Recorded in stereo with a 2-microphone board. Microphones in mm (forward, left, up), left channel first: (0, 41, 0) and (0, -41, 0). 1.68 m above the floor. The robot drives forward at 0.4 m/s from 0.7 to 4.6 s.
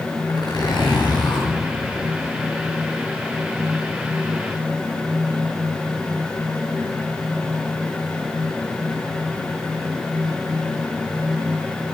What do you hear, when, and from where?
0.3 s a zipper: 65° left (ahead or behind), 10 m; by 1.5 s 70° left (ahead or behind), 10 m